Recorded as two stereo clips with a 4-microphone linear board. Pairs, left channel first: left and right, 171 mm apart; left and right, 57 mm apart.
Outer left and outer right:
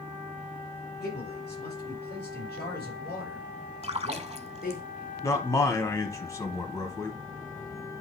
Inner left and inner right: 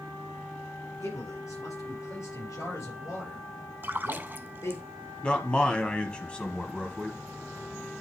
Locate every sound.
1.0 s a man speaking: 75° left (ahead or behind), 5 m; by 4.8 s 65° left (ahead or behind), 3 m
3.8 s a splash: 40° right (ahead or behind), 0.5 m
5.2 s a man speaking: 20° left (ahead or behind), 1.4 m